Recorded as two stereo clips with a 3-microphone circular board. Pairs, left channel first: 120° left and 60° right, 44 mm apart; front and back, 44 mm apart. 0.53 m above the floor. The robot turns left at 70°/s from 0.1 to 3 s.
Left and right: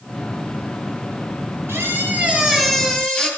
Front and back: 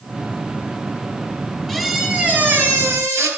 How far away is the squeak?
About 4.5 m.